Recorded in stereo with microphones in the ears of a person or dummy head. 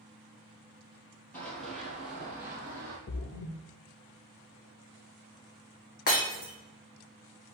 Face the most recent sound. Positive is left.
turn(degrees=45)  # may be behind; listen again after turning